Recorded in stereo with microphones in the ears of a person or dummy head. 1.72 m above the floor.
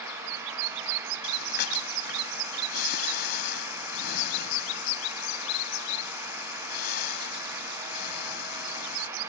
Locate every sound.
1.2 s breathing: 65° left (ahead or behind)